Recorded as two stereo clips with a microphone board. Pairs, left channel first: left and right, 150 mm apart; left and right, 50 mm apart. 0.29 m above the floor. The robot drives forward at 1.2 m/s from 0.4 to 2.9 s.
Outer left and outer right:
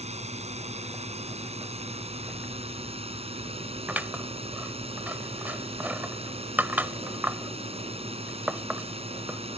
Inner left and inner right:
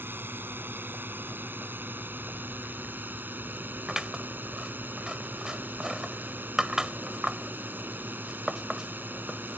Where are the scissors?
10° right (ahead or behind).